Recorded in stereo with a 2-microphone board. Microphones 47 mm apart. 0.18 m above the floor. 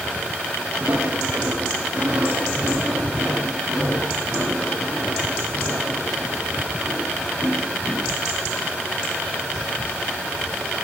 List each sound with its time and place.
0.7 s footsteps: 30° right (ahead or behind), 1.9 m; by 8.1 s 20° right (ahead or behind), 12.5 m